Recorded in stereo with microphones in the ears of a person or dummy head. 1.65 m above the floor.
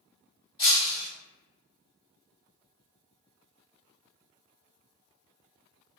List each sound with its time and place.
0.6 s breaking glass: 20° left (ahead or behind), 1.7 m